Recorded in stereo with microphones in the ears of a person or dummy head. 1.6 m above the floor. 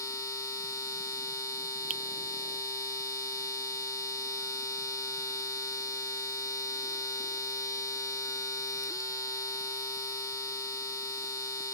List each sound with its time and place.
0.0 s a machine running: 20° left (ahead or behind)
1.9 s a finger snap: 45° right (ahead or behind)